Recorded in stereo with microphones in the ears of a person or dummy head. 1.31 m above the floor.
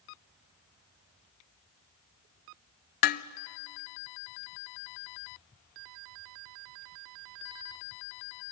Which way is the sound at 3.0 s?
45° left (ahead or behind).